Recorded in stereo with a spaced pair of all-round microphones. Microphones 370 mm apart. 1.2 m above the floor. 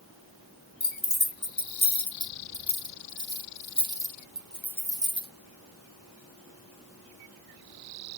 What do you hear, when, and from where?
0.8 s keys jangling: 90° left, 1.4 m; by 5.3 s 15° right (ahead or behind), 1.5 m